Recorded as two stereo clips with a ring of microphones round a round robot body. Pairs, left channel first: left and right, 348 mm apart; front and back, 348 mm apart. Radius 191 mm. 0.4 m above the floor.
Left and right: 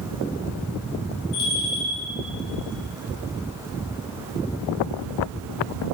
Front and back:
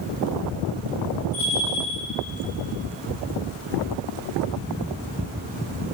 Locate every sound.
1.3 s a bell: 115° left, 2.5 m